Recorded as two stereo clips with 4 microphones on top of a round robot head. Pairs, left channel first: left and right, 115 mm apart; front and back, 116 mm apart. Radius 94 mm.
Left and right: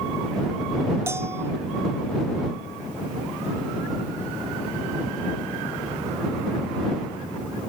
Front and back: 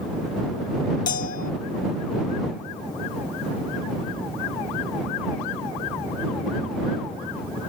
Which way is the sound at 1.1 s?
15° right.